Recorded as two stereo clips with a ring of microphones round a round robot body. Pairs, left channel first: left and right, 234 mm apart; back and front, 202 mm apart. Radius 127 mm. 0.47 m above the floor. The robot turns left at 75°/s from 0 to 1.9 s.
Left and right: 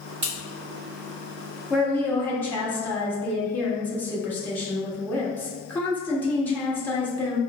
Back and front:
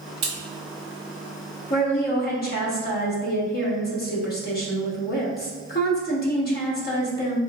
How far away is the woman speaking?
About 1.1 m.